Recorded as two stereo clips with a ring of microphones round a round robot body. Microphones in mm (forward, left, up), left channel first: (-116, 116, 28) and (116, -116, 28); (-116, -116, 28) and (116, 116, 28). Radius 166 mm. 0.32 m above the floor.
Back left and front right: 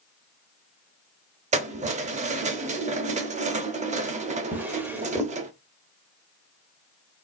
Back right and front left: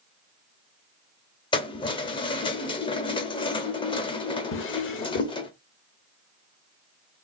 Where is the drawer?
125° right, 0.6 m.